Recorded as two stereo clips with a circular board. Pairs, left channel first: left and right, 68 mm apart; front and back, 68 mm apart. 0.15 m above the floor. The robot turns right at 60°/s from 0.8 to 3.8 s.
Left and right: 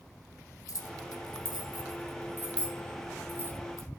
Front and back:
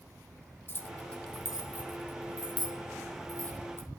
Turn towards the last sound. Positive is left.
turn(degrees=-125)